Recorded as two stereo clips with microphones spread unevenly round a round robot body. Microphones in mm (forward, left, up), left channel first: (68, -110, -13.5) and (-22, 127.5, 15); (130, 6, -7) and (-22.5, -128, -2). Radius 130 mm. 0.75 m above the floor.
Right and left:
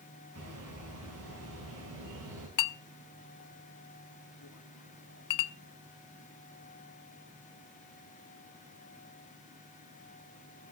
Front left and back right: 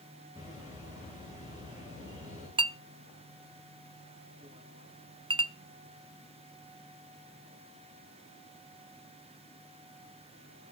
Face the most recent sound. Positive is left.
turn(degrees=-70)